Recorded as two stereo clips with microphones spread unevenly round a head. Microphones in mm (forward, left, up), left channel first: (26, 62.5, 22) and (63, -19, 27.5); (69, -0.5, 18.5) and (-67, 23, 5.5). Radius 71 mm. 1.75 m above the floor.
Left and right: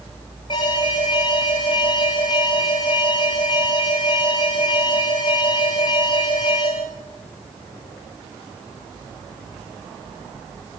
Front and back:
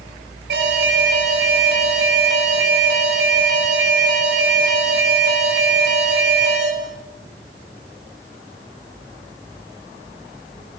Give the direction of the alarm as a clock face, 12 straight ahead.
6 o'clock.